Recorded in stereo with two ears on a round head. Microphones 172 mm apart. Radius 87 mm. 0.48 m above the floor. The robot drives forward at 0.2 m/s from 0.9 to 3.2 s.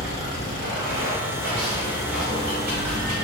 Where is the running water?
65° right (ahead or behind), 1.2 m; by 3.2 s 50° right (ahead or behind), 1.4 m.